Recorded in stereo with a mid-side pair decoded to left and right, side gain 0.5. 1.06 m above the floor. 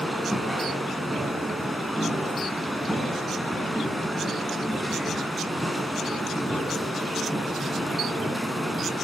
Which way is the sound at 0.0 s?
Straight ahead.